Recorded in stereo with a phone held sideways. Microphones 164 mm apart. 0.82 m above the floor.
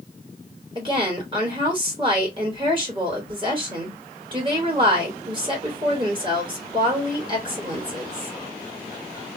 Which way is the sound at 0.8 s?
30° right (ahead or behind).